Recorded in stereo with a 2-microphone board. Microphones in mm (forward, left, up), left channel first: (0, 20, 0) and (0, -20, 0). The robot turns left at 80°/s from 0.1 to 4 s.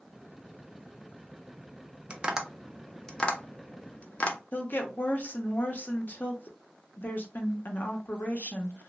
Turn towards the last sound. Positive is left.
turn(degrees=50)  # may be behind; listen again after turning